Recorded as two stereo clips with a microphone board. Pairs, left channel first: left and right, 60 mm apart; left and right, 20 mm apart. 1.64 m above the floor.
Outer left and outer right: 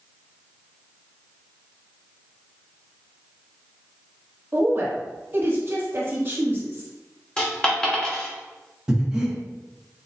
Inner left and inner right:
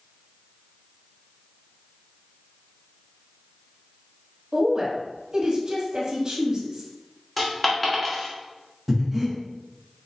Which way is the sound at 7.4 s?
15° left (ahead or behind).